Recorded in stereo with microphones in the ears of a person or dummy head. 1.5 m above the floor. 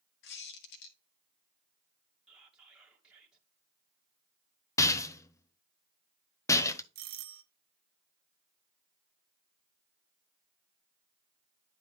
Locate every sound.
0.2 s a squeak: 65° left (ahead or behind), 1.5 m
2.3 s whispering: centre (ahead or behind), 1.7 m
4.8 s a rattle: 15° left (ahead or behind), 0.7 m
7.0 s a doorbell: 45° right (ahead or behind), 1.0 m